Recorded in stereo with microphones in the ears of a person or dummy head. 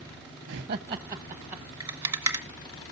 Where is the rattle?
15° right (ahead or behind), 1.8 m.